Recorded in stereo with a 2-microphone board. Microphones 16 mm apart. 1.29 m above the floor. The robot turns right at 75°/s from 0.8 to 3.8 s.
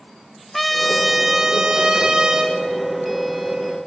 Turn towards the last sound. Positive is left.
turn(degrees=40)